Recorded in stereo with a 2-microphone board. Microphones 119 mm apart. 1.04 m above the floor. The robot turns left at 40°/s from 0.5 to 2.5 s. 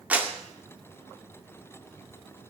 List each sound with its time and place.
0.1 s a clap: 15° right (ahead or behind), 2 m